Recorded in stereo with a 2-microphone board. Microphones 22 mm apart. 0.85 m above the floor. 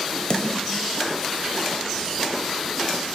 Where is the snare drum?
40° left (ahead or behind), 0.7 m.